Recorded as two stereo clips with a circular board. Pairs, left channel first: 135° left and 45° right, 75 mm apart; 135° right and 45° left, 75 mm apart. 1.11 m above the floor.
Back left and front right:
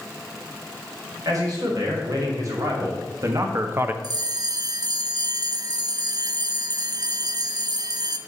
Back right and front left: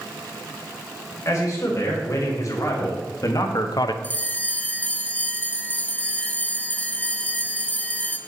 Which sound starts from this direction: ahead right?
A bell, at 4.0 s.